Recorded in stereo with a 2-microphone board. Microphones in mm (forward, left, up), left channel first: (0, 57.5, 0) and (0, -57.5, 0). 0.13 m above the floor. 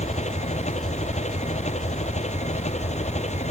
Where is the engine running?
85° left.